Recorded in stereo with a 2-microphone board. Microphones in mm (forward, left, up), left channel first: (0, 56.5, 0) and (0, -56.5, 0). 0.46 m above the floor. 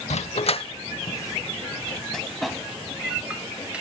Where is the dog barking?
75° left (ahead or behind), 0.8 m; by 3.8 s 10° right (ahead or behind), 2.5 m.